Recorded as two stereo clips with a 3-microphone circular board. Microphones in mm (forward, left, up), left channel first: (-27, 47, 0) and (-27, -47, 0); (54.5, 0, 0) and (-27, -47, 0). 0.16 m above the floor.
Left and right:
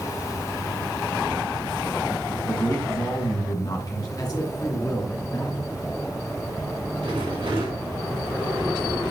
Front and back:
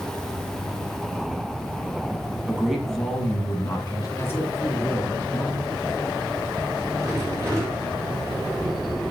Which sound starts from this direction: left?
A man speaking, at 4.2 s.